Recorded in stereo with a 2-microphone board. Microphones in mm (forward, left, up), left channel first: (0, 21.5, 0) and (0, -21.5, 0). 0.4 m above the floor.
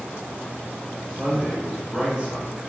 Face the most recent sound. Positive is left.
turn(degrees=-25)  # may be behind; listen again after turning